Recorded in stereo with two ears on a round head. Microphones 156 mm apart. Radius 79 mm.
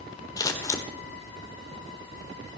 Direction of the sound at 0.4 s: 20° left (ahead or behind).